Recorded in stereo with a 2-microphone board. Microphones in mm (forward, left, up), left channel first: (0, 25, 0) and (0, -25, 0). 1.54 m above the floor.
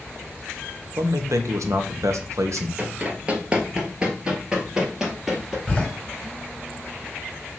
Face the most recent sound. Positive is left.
turn(degrees=20)  # may be behind; listen again after turning